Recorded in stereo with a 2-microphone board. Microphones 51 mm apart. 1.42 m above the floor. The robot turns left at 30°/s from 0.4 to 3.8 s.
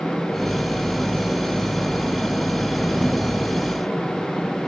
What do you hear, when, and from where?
Only background noise.